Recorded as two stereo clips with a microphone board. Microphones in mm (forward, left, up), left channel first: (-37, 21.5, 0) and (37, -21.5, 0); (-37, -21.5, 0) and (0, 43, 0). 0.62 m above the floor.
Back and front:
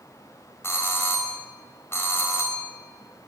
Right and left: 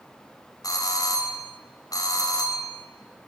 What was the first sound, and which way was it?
A doorbell, 150° right.